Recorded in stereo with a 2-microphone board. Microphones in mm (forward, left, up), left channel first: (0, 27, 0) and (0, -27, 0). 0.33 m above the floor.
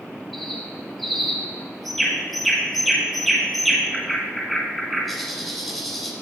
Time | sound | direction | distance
0.3 | a bird | centre (ahead or behind) | 1.2 m